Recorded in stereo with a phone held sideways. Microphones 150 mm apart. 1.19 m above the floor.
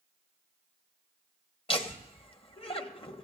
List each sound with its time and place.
1.7 s laughter: 35° left (ahead or behind), 1.4 m